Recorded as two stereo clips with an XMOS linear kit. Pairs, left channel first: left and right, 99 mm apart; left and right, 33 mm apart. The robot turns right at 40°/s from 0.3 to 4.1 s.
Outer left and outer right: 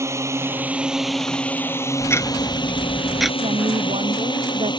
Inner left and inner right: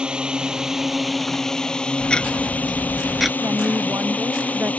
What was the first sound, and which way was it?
A drone, 30° right.